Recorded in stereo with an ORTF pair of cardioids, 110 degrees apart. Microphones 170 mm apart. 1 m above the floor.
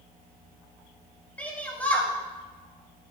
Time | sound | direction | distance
1.4 | a shout | 10° left | 7.5 m